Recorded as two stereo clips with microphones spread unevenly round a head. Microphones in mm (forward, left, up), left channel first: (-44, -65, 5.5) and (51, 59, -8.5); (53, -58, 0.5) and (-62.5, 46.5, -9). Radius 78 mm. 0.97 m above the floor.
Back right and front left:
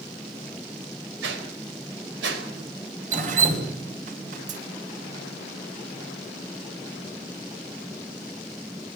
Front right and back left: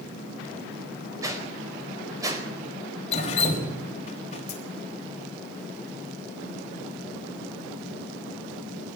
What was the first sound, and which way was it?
A whoosh, 70° left.